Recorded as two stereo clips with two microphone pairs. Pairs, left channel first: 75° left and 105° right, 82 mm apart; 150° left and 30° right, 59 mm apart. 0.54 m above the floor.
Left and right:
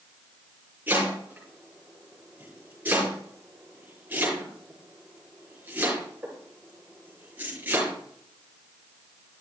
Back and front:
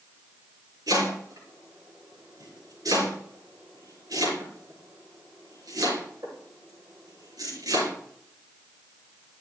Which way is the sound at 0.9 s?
35° right.